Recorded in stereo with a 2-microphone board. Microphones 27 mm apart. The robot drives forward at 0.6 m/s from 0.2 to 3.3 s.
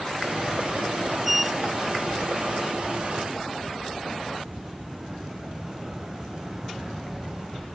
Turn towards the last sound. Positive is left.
turn(degrees=-25)  # may be behind; listen again after turning